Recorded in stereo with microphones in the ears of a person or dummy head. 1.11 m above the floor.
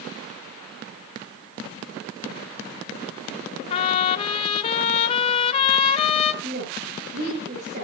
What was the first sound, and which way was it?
A trumpet, 30° left (ahead or behind).